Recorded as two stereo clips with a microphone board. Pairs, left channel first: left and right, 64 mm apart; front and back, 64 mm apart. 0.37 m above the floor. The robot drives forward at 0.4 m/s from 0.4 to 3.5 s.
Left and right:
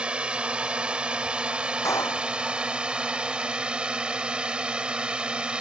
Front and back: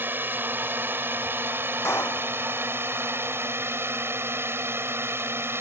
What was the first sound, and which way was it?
A drone, 155° right.